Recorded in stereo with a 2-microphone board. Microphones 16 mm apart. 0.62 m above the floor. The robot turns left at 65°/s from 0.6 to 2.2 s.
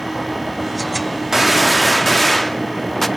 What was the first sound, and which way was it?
A gunshot, 145° right.